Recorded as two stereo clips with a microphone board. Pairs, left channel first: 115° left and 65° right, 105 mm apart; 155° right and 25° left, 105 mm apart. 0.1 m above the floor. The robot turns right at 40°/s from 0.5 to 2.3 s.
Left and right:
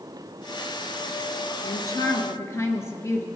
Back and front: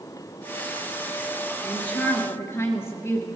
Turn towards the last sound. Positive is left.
turn(degrees=150)